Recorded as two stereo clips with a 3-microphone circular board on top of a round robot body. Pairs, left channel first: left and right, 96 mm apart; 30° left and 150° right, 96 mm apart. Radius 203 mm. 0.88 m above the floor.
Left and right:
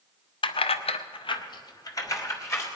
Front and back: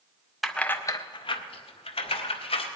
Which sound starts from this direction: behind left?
Keys jangling, at 0.4 s.